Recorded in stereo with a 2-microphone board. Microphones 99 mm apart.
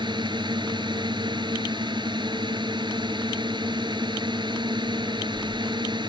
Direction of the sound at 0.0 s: 50° right (ahead or behind).